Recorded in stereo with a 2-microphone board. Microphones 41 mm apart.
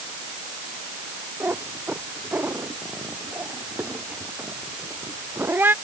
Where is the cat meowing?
50° right (ahead or behind); by 5.7 s 60° right (ahead or behind).